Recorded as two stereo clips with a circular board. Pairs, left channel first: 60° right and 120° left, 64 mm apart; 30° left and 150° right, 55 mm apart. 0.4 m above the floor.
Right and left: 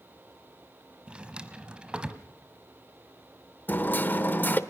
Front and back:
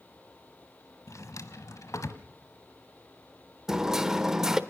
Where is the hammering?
80° right, 1.0 m.